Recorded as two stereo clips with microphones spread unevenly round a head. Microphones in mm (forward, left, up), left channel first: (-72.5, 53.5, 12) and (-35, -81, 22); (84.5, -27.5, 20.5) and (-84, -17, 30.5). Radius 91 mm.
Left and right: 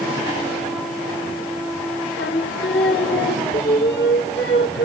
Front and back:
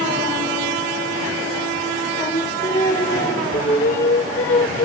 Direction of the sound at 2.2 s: 75° left.